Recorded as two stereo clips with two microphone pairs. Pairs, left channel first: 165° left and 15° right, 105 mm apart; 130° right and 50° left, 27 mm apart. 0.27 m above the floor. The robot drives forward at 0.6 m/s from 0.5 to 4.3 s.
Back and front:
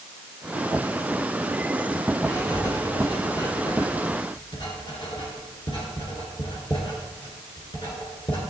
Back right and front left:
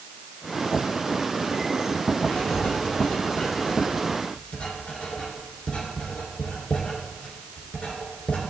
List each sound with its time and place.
2.2 s writing: 140° right, 2 m; by 8.4 s 155° right, 3 m